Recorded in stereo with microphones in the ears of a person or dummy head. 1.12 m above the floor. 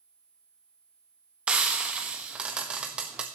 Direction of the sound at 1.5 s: 5° right (ahead or behind).